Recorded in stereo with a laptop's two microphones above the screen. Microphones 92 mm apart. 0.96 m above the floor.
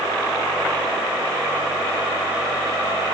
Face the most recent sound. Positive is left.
No sound to turn to.